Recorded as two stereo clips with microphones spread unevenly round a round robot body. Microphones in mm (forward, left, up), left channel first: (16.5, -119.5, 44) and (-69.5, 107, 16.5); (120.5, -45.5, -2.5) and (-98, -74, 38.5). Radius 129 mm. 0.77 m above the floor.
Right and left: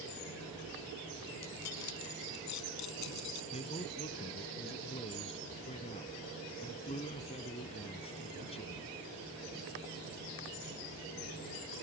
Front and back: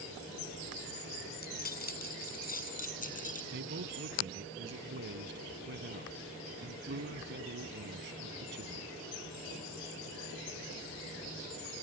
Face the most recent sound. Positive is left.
turn(degrees=-135)